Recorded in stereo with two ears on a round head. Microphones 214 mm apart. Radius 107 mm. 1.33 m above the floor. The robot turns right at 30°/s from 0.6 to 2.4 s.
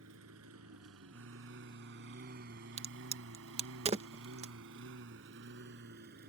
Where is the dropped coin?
I don't hear a dropped coin.